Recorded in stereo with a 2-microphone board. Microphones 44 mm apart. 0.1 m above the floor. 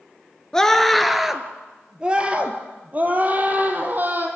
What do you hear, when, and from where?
0.5 s a scream: 10° left (ahead or behind), 1.4 m; by 4.3 s 45° right (ahead or behind), 3.5 m